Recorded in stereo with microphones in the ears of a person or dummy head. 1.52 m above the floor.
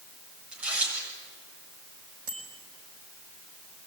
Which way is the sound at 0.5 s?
5° right (ahead or behind).